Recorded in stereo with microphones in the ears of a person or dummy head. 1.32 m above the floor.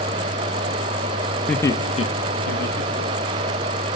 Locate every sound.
1.5 s laughter: 5° left (ahead or behind), 1.3 m; by 3.5 s 60° left (ahead or behind), 3.5 m